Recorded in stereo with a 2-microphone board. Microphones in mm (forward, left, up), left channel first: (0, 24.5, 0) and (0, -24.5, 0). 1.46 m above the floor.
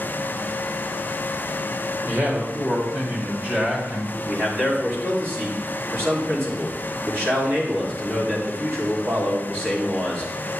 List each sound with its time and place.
2.1 s a man speaking: 50° right (ahead or behind), 3 m; by 4.2 s 25° right (ahead or behind), 3 m
4.3 s a man speaking: 50° right (ahead or behind), 3.5 m